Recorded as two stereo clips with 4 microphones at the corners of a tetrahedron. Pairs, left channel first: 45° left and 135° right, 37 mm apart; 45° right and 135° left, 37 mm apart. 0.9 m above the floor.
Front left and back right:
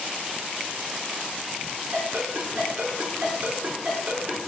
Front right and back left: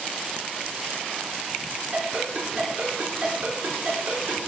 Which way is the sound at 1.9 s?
175° left.